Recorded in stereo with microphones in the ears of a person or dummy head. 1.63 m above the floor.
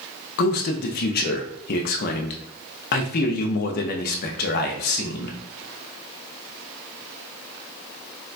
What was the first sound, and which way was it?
A man speaking, 50° left (ahead or behind).